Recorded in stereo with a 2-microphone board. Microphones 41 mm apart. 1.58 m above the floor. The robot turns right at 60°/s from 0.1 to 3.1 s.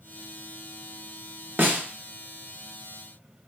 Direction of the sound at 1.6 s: 55° right (ahead or behind).